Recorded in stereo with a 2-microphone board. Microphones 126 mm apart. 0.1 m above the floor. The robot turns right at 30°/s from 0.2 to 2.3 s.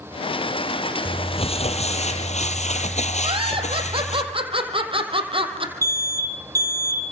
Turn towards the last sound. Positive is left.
turn(degrees=-25)  # may be behind; listen again after turning